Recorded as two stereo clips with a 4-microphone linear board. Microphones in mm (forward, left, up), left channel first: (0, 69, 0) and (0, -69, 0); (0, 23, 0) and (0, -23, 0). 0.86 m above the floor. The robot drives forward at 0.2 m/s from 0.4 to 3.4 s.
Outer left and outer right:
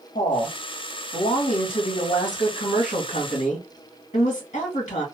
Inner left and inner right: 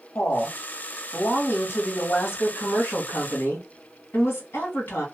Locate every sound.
0.1 s a woman speaking: 70° left (ahead or behind), 1.6 m; by 5.0 s 60° left (ahead or behind), 1.7 m